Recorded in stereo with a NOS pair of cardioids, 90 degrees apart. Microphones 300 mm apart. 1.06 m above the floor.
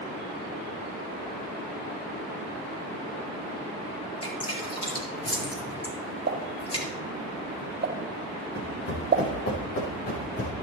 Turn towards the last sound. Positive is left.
turn(degrees=50)